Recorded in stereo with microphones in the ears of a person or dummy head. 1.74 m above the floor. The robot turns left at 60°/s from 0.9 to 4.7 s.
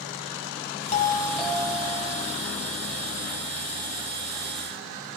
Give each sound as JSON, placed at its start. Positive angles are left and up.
{"t": 0.9, "sound": "a doorbell", "azimuth_deg": 35, "distance_m": 1.8}